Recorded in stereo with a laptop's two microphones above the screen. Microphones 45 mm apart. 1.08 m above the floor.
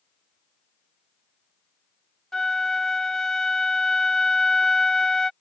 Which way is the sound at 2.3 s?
10° left (ahead or behind).